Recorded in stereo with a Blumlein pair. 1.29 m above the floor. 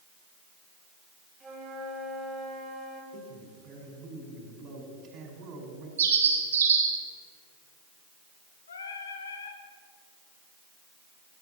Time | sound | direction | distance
1.4 | a flute | 15° right | 4 m
3.1 | a man speaking | 30° right | 5.5 m
6.0 | a bird | 65° right | 3 m
8.7 | singing | 70° left | 2.0 m